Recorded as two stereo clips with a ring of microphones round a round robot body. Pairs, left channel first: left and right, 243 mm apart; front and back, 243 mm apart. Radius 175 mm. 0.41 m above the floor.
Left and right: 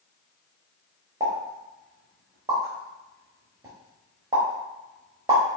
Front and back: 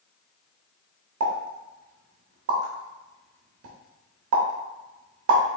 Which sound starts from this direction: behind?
A pop, at 1.2 s.